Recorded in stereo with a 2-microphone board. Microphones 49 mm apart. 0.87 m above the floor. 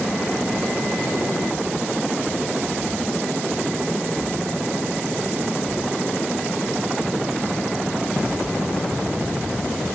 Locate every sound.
Only background noise.